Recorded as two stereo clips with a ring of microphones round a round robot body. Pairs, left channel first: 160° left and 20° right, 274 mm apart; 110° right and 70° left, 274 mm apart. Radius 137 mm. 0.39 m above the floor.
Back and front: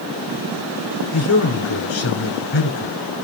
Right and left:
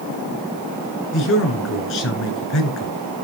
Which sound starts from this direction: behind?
A man speaking, at 1.1 s.